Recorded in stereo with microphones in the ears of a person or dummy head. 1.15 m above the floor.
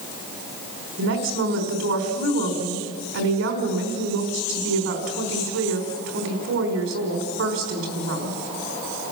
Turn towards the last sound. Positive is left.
turn(degrees=-75)  # may be behind; listen again after turning